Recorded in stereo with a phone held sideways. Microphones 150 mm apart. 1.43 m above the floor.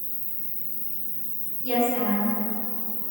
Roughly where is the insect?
Right.